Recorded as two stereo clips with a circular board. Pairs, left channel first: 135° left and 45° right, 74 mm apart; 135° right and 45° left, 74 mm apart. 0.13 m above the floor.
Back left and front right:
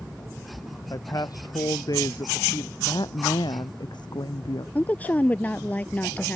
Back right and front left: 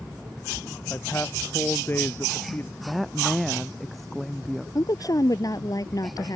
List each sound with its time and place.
0.9 s a man speaking: 170° left; by 2.7 s 165° left
2.8 s a woman speaking: 135° left
4.8 s a woman speaking: 160° right